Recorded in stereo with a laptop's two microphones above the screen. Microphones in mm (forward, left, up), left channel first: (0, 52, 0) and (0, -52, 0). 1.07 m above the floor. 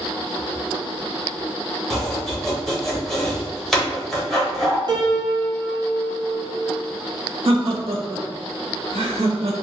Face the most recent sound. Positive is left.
turn(degrees=-75)  # may be behind; listen again after turning